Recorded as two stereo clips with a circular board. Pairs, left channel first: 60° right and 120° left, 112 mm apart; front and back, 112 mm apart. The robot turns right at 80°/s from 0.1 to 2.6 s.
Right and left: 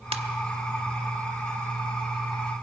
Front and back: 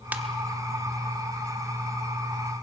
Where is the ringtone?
105° left, 1.2 m; by 0.2 s 115° left, 1.2 m.